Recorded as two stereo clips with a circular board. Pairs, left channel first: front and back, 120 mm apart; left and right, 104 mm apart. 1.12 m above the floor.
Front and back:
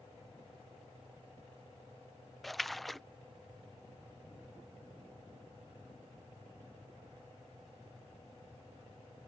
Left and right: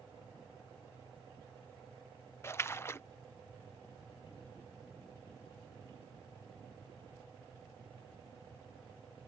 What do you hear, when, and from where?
2.4 s a splash: 90° left